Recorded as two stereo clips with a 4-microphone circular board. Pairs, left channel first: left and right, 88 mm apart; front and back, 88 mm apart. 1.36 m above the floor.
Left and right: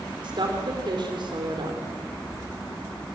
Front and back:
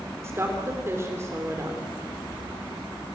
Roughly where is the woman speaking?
Behind right.